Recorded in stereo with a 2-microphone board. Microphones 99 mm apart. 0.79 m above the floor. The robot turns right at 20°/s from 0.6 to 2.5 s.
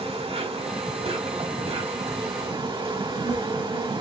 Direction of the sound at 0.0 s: 100° right.